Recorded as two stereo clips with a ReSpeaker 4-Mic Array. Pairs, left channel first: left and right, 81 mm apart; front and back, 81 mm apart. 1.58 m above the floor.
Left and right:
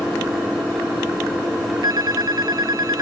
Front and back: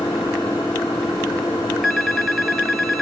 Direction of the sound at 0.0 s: Straight ahead.